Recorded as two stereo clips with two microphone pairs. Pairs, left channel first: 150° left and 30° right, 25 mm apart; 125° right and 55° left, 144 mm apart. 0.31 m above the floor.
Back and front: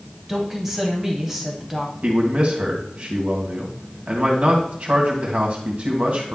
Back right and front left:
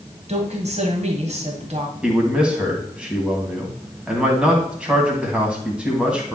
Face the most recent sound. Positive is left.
turn(degrees=-25)